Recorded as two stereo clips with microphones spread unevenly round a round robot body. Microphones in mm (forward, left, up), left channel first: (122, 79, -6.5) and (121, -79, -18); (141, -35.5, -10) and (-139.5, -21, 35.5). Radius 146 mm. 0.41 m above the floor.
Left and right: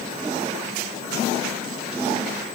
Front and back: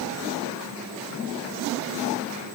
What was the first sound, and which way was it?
Only background noise.